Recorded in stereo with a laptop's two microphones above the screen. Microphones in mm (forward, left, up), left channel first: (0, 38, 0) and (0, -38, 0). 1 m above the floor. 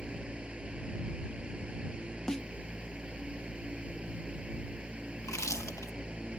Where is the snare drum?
10° left (ahead or behind).